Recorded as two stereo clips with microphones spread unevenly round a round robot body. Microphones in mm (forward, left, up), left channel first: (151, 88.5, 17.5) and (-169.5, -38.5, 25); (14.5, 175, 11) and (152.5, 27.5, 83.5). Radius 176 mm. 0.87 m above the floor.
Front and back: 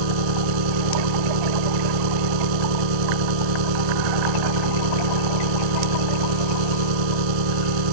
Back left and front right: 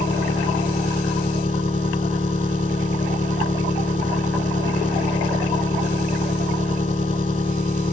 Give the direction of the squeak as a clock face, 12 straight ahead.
I don't hear a squeak.